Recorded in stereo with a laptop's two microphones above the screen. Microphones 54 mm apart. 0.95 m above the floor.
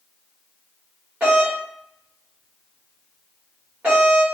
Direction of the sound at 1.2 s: 25° right (ahead or behind).